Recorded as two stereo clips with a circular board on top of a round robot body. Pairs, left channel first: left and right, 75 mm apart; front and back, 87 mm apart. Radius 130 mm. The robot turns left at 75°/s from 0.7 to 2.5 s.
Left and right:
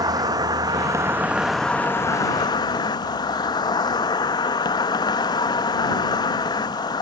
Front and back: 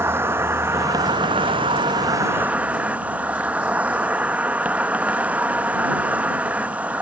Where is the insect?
120° right; by 7.0 s 105° left.